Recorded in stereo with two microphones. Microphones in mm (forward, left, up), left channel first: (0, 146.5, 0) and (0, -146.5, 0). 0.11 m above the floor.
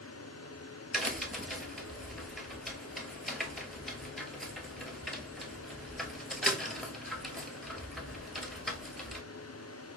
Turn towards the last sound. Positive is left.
turn(degrees=0)  # may be behind; listen again after turning